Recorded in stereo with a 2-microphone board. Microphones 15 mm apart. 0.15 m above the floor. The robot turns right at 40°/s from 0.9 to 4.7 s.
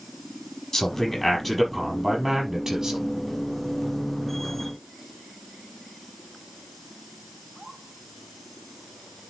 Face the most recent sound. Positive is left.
turn(degrees=-60)